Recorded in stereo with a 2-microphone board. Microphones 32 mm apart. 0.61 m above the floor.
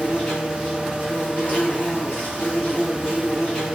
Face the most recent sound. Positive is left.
turn(degrees=50)  # may be behind; listen again after turning